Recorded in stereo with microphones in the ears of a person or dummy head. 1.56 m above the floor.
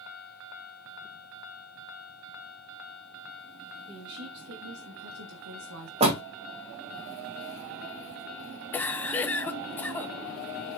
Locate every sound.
3.9 s a woman speaking: 55° right (ahead or behind), 2.5 m; by 5.9 s 70° right (ahead or behind), 1.6 m
6.0 s a door slam: 30° right (ahead or behind), 1.9 m
8.7 s a cough: 10° left (ahead or behind), 0.9 m